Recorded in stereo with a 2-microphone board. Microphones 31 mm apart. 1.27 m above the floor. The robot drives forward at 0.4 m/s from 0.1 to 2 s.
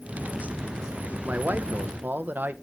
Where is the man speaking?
75° right (ahead or behind), 0.9 m; by 2.5 s 80° right, 0.9 m.